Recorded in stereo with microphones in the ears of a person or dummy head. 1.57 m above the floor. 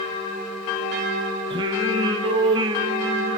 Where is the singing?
20° right (ahead or behind), 0.8 m.